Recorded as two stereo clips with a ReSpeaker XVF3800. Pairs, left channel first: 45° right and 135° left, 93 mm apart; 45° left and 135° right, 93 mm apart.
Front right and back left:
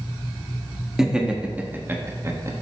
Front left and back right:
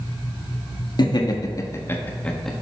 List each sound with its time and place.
1.0 s laughter: 55° left, 1.1 m; by 2.5 s 130° left, 0.9 m